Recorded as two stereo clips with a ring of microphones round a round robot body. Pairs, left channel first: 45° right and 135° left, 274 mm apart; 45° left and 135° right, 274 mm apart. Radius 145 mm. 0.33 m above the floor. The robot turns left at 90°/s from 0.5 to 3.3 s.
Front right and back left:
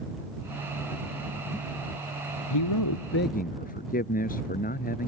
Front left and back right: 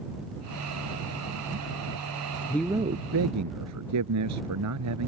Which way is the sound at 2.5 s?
35° right.